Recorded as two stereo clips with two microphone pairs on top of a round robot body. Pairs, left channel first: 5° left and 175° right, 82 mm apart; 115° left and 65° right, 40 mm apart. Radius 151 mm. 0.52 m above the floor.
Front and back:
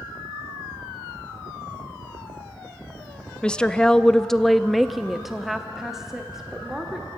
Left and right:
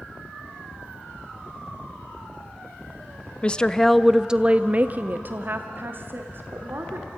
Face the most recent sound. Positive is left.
turn(degrees=-95)